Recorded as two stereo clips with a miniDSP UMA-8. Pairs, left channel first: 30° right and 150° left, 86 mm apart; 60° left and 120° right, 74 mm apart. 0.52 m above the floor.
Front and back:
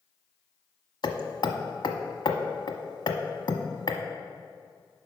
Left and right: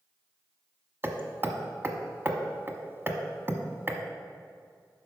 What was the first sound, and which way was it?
Hammering, 60° right.